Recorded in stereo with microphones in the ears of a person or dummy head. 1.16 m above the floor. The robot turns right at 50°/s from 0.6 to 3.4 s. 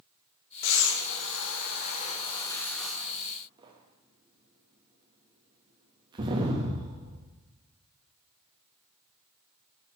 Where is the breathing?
70° left (ahead or behind), 0.9 m; by 7.2 s 30° right (ahead or behind), 0.9 m.